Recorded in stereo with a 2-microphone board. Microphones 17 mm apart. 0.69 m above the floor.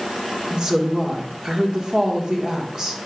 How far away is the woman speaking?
About 1.6 m.